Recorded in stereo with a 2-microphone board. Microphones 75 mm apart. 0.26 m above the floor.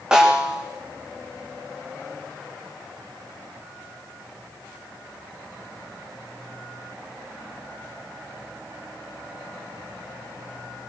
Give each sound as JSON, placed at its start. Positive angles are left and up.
{"t": 0.1, "sound": "a snare drum", "side_deg": -10, "distance_m": 4.5}